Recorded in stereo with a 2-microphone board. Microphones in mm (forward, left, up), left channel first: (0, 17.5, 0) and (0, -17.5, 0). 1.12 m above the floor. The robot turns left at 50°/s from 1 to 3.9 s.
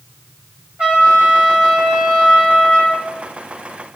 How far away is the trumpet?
About 1.4 m.